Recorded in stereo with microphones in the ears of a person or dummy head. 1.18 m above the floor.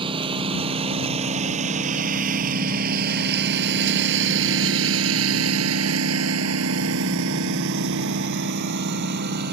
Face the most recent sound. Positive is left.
turn(degrees=-55)  # may be behind; listen again after turning